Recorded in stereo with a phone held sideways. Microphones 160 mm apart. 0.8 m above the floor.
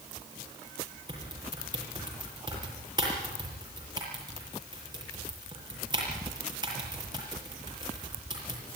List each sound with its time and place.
1.1 s typing on a keyboard: 25° right (ahead or behind), 7 m